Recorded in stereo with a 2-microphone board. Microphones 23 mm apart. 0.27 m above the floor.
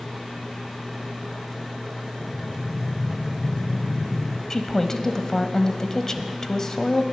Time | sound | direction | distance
2.2 | breathing | 40° left (ahead or behind) | 0.8 m
4.5 | a woman speaking | 25° left (ahead or behind) | 1.1 m